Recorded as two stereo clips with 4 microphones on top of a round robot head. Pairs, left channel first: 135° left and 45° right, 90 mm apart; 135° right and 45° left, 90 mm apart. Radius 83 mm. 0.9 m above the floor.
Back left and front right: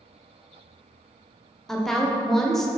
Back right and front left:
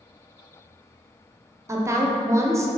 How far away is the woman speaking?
About 0.6 m.